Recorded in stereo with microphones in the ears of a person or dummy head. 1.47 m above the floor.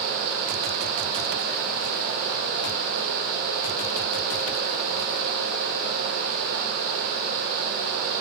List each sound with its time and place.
Only background noise.